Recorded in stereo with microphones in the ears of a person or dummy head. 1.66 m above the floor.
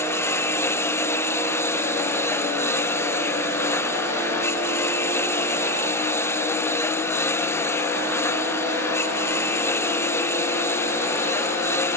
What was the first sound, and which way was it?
A lawn mower, 15° left (ahead or behind).